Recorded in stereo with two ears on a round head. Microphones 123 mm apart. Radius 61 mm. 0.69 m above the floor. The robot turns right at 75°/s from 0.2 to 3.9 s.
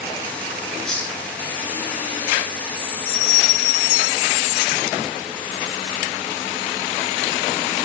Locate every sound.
0.8 s a hiss: centre (ahead or behind), 2.5 m; by 1.2 s 25° left (ahead or behind), 2.5 m